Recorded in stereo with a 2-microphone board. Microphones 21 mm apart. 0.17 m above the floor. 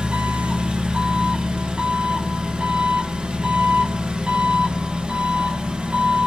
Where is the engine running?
60° right (ahead or behind), 0.7 m.